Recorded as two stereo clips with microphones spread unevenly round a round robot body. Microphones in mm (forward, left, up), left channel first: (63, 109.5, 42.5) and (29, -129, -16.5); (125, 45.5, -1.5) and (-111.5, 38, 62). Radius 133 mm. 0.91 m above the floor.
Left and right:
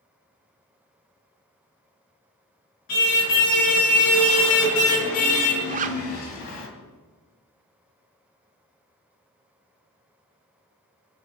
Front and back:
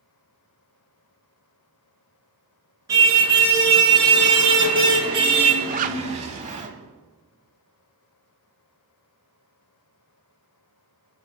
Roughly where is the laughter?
I don't hear laughter.